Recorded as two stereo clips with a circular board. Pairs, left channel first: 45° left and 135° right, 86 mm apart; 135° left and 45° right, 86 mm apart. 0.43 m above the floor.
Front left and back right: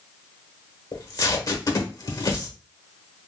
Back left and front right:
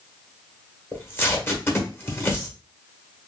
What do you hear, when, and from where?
0.9 s tape being pulled: 80° left, 1.0 m